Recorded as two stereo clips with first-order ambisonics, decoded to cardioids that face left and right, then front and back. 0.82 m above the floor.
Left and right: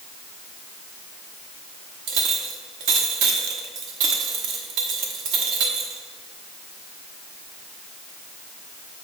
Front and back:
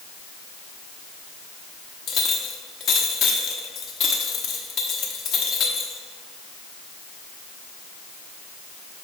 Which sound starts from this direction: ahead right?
A clink, at 2.1 s.